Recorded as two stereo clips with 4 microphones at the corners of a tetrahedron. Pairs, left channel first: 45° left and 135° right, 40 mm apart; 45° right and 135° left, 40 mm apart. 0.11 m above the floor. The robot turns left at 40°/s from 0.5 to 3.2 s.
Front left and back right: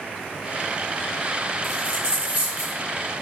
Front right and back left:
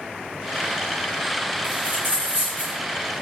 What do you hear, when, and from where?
1.6 s a dropped coin: 130° left, 2 m; by 2.8 s 85° left, 2 m